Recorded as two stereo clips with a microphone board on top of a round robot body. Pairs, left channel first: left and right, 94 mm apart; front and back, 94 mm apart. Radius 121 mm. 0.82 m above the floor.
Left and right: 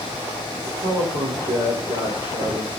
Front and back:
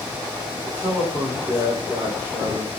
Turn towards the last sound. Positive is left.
turn(degrees=-100)